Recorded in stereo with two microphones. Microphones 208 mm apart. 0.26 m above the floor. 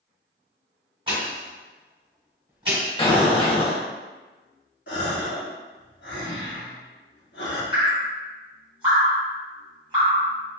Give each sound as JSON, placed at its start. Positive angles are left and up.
{"t": 1.1, "sound": "a pop", "side_deg": -25, "distance_m": 1.5}
{"t": 3.0, "sound": "an explosion", "side_deg": 25, "distance_m": 0.5}
{"t": 4.9, "sound": "a gasp", "side_deg": 60, "distance_m": 0.9}
{"t": 7.7, "sound": "dripping", "side_deg": -25, "distance_m": 1.6}